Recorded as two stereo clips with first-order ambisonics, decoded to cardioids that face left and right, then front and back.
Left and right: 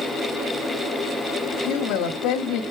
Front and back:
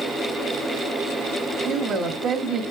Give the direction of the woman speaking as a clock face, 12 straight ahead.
8 o'clock.